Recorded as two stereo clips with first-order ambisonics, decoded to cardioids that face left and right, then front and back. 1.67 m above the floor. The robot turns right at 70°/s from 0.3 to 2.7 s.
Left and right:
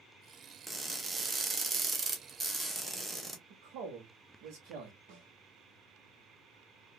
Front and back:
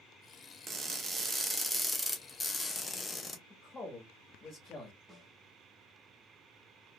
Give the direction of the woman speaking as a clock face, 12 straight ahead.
2 o'clock.